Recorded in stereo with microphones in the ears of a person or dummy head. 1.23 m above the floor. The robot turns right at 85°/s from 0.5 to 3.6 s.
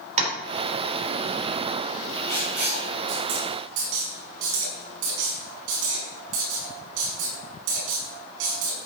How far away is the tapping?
About 4 m.